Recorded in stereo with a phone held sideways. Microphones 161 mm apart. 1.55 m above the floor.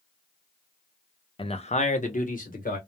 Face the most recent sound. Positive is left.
turn(degrees=60)  # may be behind; listen again after turning